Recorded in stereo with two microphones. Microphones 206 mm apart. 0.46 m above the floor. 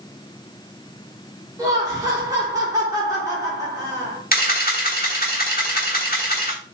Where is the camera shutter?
45° left (ahead or behind), 1.2 m.